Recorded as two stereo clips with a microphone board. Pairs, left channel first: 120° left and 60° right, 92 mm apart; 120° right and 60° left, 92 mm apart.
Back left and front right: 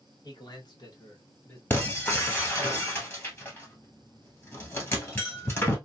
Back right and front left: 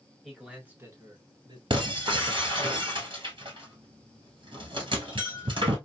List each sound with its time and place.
0.2 s a man speaking: 150° left, 1.5 m; by 1.6 s 60° left, 1.3 m
1.7 s breaking glass: 55° left, 1.6 m